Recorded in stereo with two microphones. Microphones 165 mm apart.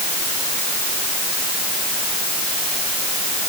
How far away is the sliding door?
No sliding door in this recording.